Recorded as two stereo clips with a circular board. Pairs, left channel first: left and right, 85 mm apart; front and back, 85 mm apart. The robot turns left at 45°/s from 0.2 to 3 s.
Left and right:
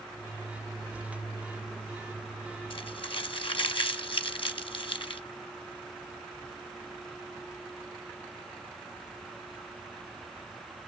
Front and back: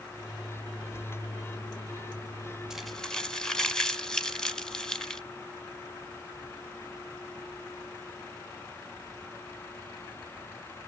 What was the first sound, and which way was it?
Crumpling, 95° left.